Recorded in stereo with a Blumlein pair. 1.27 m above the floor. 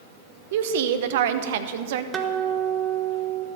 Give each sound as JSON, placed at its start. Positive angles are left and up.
{"t": 0.5, "sound": "a woman speaking", "azimuth_deg": -55, "distance_m": 0.8}
{"t": 2.1, "sound": "a guitar", "azimuth_deg": -20, "distance_m": 1.1}